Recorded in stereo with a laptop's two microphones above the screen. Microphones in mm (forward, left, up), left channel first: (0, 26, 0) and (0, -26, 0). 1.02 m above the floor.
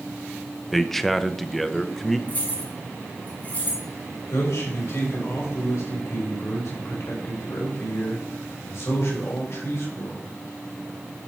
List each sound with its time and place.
0.7 s a man speaking: 5° left (ahead or behind), 0.7 m
2.3 s keys jangling: 35° left (ahead or behind), 3 m
4.3 s a man speaking: 75° left (ahead or behind), 4.5 m